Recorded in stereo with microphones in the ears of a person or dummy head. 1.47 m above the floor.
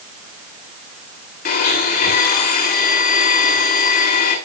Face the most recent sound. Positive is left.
turn(degrees=50)  # may be behind; listen again after turning